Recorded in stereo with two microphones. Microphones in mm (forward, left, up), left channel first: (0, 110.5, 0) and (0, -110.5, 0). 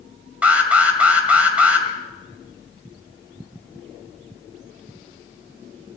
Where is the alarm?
5° right (ahead or behind), 1.8 m.